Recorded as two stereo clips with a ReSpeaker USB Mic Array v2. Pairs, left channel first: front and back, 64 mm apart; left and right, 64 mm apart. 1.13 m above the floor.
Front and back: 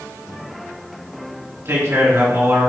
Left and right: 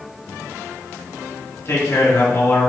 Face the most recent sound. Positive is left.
turn(degrees=135)